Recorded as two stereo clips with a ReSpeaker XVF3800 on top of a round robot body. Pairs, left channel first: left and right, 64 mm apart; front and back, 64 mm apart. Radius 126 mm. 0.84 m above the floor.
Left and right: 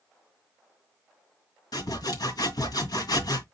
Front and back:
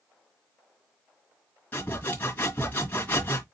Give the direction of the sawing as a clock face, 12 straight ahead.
10 o'clock.